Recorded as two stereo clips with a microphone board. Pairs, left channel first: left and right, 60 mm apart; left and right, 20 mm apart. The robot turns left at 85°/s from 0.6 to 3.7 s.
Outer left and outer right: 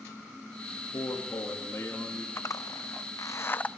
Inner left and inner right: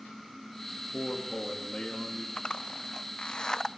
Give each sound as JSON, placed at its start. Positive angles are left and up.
{"t": 0.8, "sound": "a man speaking", "azimuth_deg": 125, "distance_m": 1.9}
{"t": 2.4, "sound": "a zipper", "side_deg": 45, "distance_m": 0.5}